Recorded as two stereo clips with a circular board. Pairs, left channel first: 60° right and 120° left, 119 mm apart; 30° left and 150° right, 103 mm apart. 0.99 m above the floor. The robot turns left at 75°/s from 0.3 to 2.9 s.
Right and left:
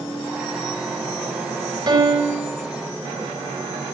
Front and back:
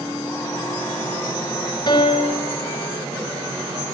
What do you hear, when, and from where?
1.9 s a piano: 70° left, 3.5 m; by 2.5 s 20° left, 3.5 m